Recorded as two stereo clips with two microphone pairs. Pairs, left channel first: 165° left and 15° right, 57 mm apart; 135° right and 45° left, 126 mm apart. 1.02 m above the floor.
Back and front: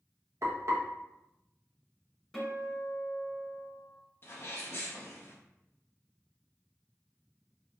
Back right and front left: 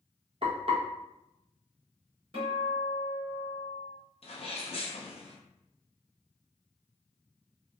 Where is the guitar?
80° left, 2.0 m.